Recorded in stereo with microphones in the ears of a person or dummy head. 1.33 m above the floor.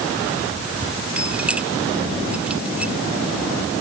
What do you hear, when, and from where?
1.2 s keys jangling: 10° right (ahead or behind)